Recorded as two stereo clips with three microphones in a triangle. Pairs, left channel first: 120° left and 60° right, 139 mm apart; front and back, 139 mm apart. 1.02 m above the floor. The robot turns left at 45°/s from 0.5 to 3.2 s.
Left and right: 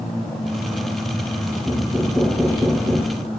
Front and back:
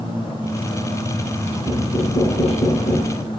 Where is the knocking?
45° left, 3.5 m; by 3.2 s 25° right, 3.5 m.